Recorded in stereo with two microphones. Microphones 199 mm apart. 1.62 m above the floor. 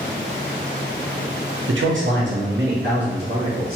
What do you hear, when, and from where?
1.7 s a man speaking: 80° right, 0.7 m; by 3.8 s 50° right (ahead or behind), 1.6 m